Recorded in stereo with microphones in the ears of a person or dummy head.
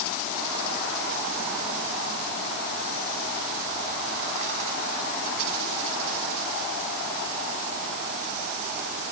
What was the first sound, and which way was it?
Only background noise.